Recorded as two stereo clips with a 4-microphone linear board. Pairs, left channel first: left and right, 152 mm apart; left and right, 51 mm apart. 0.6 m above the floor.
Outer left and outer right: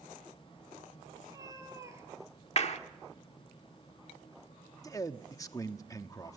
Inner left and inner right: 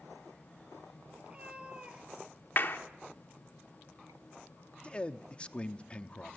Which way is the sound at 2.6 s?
50° left (ahead or behind).